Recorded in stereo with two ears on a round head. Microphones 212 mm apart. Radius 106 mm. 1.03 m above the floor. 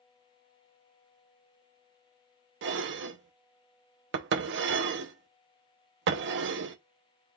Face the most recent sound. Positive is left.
turn(degrees=-50)  # may be behind; listen again after turning